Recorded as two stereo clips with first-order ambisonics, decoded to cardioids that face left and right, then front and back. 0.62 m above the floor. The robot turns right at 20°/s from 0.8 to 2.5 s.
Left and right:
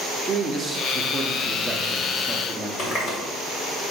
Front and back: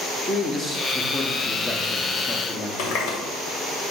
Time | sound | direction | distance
0.2 | a man speaking | 55° right | 0.7 m
2.8 | a running tap | 25° left | 1.6 m